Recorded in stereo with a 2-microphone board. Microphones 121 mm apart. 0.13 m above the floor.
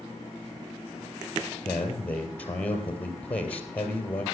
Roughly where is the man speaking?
Centre.